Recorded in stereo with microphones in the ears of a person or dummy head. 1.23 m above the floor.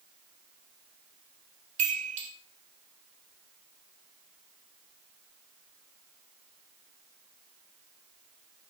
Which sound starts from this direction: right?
A chime, at 1.8 s.